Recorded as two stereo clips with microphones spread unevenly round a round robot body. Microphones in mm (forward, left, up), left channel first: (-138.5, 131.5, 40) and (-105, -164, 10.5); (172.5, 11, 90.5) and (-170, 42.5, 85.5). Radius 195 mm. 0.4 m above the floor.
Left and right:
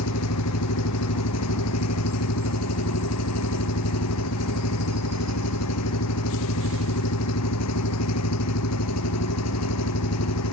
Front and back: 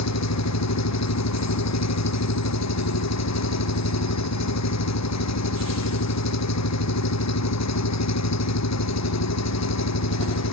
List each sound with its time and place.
0.0 s an engine running: 40° left